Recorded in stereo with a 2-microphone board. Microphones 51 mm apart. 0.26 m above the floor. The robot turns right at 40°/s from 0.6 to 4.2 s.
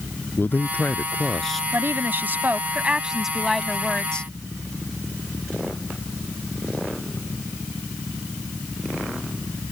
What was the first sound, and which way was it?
A man speaking, 135° left.